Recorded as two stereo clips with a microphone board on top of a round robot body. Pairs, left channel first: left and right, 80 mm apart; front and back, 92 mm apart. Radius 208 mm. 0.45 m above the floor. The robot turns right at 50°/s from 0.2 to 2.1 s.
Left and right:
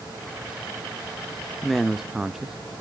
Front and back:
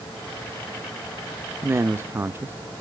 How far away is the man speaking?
About 0.7 m.